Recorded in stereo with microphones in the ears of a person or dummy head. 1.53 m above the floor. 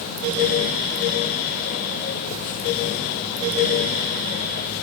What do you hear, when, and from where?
Only background noise.